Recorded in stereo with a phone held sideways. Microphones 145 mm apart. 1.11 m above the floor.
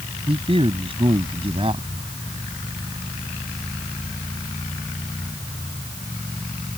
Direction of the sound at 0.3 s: 40° right (ahead or behind).